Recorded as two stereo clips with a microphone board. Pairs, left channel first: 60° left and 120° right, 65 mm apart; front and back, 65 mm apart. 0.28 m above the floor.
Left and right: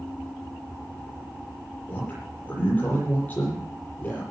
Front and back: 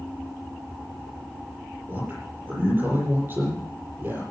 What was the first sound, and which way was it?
A man speaking, 120° left.